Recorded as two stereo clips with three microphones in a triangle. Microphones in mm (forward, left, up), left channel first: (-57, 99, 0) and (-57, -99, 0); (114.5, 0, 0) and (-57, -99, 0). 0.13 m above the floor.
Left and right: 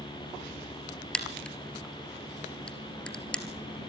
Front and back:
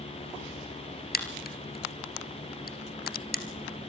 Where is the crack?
5° left, 2.5 m.